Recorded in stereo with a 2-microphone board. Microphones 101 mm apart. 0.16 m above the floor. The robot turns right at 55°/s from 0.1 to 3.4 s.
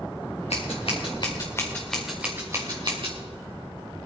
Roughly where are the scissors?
Left.